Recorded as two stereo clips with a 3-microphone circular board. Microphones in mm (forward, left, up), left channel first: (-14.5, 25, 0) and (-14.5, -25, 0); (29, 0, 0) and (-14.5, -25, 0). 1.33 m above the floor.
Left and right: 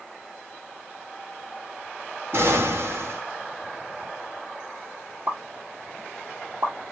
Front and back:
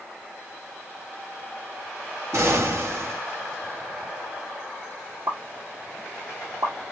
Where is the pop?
135° right, 1.9 m.